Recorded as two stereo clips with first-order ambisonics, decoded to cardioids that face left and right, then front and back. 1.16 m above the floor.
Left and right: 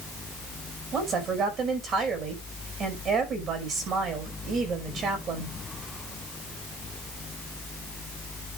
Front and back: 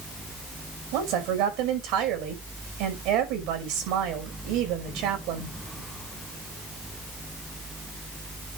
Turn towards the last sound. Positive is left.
turn(degrees=-150)